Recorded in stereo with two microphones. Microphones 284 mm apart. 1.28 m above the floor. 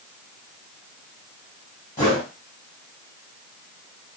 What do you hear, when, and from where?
2.0 s a whoosh: 35° left (ahead or behind), 1.6 m